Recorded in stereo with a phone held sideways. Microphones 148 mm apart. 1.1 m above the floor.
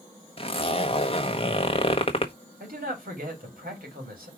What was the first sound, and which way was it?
A zipper, 40° left (ahead or behind).